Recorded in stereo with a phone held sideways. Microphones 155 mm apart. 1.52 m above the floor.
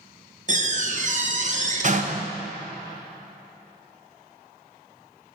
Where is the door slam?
50° right (ahead or behind), 0.9 m.